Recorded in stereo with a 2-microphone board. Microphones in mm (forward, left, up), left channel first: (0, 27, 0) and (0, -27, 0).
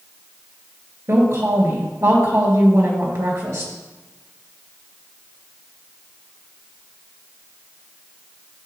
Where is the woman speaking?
65° right (ahead or behind), 3 m.